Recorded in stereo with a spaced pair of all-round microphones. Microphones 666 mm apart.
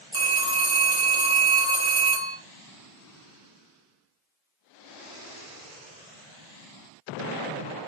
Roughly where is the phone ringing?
Centre.